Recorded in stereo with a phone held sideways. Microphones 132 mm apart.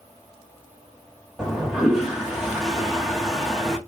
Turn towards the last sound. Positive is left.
turn(degrees=0)  # may be behind; listen again after turning